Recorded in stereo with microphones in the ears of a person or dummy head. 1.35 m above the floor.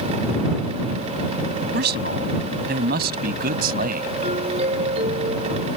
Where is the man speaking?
65° right (ahead or behind); by 4.1 s 55° right (ahead or behind).